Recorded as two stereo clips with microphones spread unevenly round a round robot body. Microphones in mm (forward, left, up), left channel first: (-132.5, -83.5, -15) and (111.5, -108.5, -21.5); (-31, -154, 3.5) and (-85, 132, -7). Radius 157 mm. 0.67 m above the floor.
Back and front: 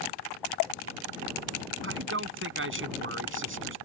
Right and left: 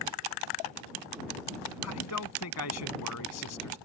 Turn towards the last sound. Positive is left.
turn(degrees=-40)